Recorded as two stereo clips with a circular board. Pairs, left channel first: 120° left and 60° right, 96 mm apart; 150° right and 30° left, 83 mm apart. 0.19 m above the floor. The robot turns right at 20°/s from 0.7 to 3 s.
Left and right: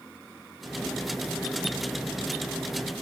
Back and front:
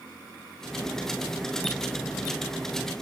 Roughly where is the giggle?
No giggle in this recording.